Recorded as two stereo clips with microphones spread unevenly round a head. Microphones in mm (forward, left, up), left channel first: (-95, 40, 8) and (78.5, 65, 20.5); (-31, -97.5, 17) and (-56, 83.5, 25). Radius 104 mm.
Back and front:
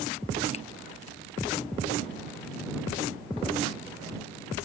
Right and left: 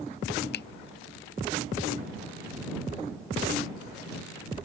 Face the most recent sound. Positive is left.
turn(degrees=-110)